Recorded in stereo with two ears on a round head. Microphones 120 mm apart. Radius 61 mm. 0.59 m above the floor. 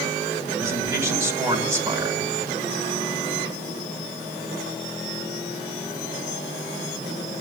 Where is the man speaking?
20° right (ahead or behind), 2.5 m.